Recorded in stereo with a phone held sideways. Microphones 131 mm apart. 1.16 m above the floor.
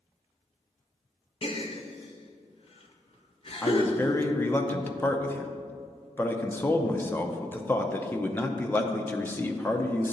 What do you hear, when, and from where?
1.4 s a gasp: 45° left (ahead or behind), 0.8 m
3.6 s a man speaking: 15° left (ahead or behind), 0.6 m